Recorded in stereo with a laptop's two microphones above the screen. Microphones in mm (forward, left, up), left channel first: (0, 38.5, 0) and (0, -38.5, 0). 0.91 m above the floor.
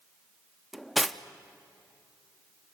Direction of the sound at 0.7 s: Centre (ahead or behind).